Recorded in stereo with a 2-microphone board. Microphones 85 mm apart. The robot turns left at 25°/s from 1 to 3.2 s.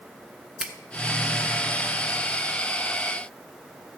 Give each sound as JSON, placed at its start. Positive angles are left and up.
{"t": 0.6, "sound": "a finger snap", "side_deg": -5, "distance_m": 0.9}